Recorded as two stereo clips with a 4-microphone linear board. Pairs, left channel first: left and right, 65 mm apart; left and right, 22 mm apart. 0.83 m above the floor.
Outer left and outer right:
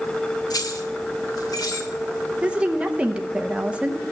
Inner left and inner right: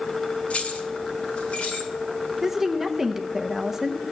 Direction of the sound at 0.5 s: 70° left (ahead or behind).